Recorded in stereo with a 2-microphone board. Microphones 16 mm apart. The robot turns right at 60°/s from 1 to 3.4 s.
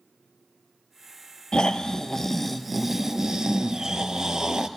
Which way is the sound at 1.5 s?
115° left.